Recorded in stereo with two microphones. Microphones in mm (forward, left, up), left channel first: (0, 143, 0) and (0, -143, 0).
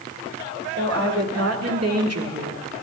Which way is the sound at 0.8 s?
55° right (ahead or behind).